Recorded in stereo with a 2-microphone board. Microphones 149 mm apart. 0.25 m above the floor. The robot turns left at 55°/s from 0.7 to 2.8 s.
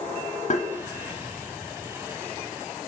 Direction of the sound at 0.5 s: 50° left (ahead or behind).